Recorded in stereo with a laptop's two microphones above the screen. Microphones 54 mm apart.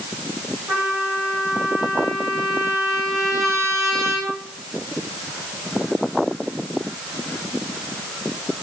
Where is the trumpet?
65° right (ahead or behind), 4.5 m.